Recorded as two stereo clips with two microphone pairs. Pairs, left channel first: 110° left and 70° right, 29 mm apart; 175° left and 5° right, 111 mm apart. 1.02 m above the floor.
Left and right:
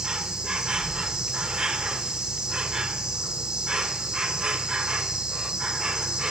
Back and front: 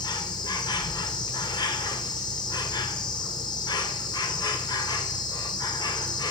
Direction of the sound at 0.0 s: 135° right.